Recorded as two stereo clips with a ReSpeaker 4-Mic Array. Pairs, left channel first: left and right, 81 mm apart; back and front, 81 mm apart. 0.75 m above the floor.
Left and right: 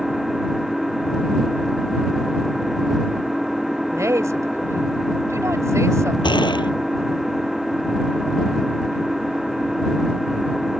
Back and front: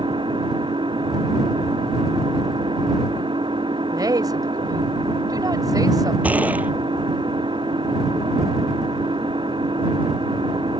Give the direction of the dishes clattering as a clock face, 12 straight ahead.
No dishes clattering in this recording.